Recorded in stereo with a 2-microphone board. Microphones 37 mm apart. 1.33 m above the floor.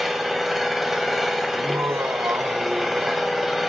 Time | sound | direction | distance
0.0 | an engine running | 5° right (ahead or behind) | 1.9 m
1.5 | laughter | 90° right | 0.8 m